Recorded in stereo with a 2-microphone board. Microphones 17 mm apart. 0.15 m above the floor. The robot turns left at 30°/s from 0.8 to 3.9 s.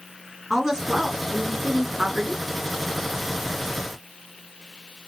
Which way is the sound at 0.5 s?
20° right.